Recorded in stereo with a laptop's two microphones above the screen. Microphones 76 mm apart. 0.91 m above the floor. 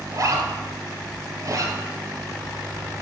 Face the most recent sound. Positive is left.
turn(degrees=-50)  # may be behind; listen again after turning